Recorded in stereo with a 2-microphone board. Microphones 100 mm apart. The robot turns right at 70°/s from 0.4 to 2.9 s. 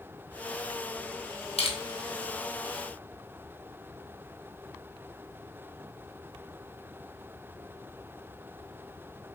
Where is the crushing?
85° left, 1.3 m; by 1.8 s 70° left (ahead or behind), 1.3 m.